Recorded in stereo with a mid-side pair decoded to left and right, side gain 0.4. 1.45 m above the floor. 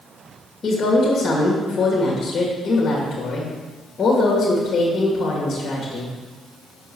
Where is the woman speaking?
50° left, 2 m.